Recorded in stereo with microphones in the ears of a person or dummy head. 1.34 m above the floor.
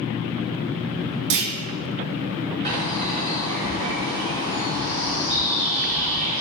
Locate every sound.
1.3 s a clunk: 60° right (ahead or behind), 0.5 m
2.6 s a bird: 35° right (ahead or behind), 1.9 m